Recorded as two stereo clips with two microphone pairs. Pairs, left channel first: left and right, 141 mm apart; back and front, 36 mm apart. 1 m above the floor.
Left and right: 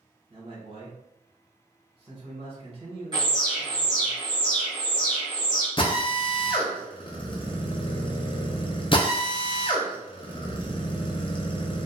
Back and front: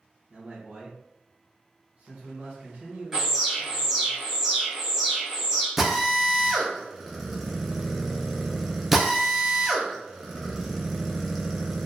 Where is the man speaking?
45° right, 1.2 m.